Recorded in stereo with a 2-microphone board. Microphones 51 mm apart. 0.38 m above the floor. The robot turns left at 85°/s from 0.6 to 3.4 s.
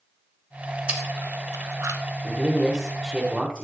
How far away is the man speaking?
About 1.2 m.